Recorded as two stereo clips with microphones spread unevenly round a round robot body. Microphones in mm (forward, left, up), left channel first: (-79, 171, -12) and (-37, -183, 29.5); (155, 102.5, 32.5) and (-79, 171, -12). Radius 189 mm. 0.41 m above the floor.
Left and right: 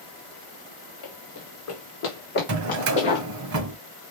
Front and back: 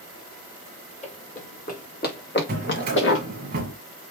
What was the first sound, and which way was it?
Running footsteps, 50° left.